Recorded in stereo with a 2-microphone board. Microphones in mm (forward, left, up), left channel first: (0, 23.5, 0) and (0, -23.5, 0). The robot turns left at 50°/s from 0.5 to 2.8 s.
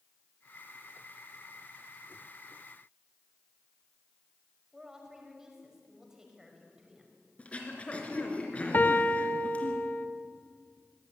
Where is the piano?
40° left (ahead or behind), 1.2 m.